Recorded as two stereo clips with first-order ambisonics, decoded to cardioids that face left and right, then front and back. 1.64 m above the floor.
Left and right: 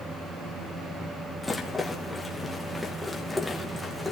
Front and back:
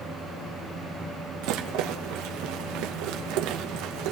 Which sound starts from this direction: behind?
A rattle, at 1.4 s.